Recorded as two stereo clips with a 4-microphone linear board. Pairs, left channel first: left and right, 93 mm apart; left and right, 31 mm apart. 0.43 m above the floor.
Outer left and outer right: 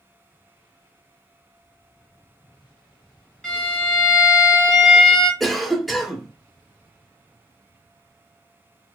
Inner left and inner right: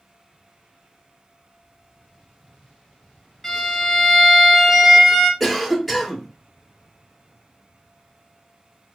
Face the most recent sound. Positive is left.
turn(degrees=0)  # may be behind; listen again after turning